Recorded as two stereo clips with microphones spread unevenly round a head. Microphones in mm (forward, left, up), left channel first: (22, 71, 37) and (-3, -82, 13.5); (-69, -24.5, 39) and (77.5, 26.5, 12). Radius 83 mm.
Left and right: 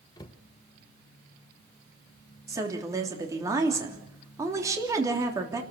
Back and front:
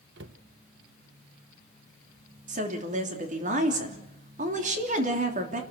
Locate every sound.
0.2 s a cupboard door: 25° left, 1.0 m
2.5 s a woman speaking: 25° right, 3 m